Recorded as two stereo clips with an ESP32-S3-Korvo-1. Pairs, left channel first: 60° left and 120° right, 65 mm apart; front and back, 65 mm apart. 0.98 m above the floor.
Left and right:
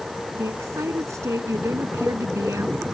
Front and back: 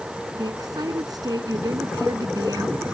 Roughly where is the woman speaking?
Behind.